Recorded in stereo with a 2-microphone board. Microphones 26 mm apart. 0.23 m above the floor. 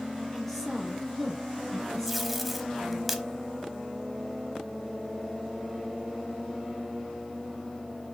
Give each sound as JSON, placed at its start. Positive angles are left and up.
{"t": 0.3, "sound": "a woman speaking", "side_deg": 5, "distance_m": 4.5}
{"t": 2.1, "sound": "tape being pulled", "side_deg": -5, "distance_m": 1.1}